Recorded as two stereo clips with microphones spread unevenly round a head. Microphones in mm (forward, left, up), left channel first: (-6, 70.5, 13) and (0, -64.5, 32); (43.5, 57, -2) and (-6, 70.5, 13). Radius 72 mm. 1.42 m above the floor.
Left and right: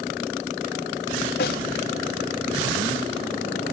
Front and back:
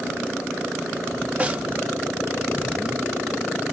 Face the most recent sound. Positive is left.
turn(degrees=110)